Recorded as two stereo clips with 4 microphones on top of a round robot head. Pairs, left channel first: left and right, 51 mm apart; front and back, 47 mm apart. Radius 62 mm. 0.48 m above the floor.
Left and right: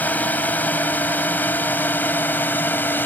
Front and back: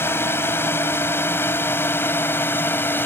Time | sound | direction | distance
0.0 | a drone | 35° left | ?